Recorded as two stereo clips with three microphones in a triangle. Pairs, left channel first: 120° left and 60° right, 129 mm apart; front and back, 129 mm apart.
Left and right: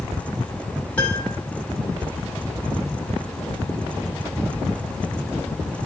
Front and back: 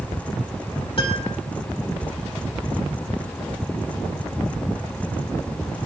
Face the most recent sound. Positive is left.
turn(degrees=40)